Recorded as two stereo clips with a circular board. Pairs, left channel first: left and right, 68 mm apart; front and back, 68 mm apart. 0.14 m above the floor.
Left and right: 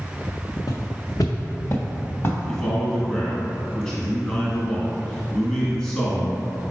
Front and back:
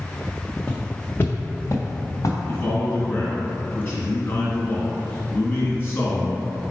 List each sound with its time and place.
0.7 s footsteps: 70° left, 0.8 m; by 2.4 s 35° left, 1.4 m
2.5 s a man speaking: 20° left, 1.5 m